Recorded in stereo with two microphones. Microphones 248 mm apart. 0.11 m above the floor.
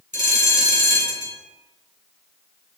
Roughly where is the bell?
Right.